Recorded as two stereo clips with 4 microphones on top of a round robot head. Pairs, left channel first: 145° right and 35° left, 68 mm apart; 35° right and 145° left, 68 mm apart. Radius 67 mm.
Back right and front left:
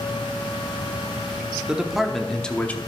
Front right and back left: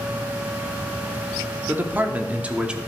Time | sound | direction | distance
1.7 | a man speaking | 105° left | 1.1 m